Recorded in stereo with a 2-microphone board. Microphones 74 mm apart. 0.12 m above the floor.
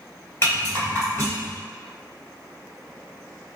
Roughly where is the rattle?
Left.